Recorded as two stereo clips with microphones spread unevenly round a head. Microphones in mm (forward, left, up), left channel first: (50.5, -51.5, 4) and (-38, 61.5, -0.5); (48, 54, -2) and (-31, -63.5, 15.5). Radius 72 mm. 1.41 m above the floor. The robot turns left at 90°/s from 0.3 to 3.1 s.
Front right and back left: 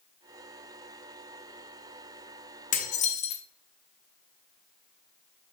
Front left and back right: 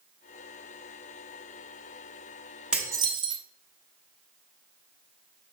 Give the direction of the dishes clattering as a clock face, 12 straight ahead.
2 o'clock.